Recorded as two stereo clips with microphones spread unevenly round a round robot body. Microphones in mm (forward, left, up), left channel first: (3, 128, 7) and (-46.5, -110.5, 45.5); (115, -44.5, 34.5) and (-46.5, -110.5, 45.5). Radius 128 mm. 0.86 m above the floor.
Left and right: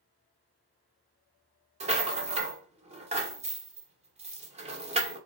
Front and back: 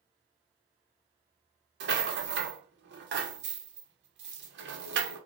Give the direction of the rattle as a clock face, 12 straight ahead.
6 o'clock.